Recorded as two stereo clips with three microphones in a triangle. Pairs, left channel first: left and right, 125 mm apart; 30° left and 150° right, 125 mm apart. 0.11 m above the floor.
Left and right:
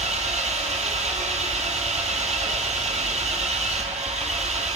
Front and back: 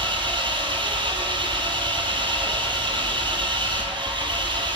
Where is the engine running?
105° right, 0.8 m.